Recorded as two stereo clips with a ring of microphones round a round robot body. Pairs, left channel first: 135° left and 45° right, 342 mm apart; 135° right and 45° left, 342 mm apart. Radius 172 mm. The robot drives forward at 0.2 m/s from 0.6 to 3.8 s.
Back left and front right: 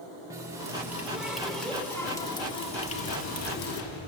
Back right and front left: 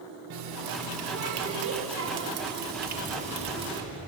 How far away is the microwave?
About 4 m.